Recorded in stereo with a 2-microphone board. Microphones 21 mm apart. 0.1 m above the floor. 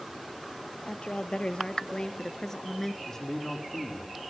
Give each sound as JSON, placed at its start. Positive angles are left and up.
{"t": 0.8, "sound": "a woman speaking", "side_deg": 60, "distance_m": 2.5}
{"t": 3.1, "sound": "a man speaking", "side_deg": 10, "distance_m": 4.5}